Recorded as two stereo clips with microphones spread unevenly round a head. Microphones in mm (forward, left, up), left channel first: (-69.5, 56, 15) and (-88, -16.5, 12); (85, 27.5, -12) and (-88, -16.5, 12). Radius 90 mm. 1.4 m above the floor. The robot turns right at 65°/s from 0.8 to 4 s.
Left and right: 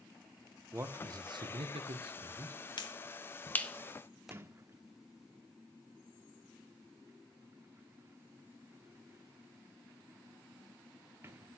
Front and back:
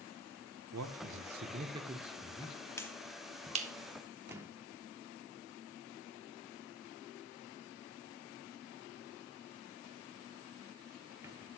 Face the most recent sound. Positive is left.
turn(degrees=-120)